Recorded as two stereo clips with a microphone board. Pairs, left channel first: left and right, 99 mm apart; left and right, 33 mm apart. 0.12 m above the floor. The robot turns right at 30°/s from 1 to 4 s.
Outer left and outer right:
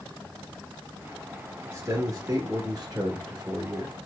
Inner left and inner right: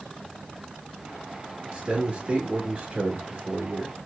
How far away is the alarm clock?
No alarm clock in this recording.